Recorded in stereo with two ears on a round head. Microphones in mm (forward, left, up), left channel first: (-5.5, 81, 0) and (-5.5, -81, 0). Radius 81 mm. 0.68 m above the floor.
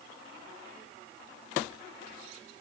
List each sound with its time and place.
Only background noise.